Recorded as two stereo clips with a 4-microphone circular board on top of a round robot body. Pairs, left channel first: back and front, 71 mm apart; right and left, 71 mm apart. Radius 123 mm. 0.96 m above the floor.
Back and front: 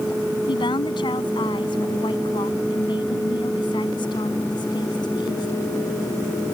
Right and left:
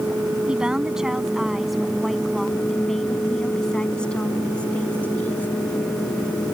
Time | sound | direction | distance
0.5 | a woman speaking | 170° left | ?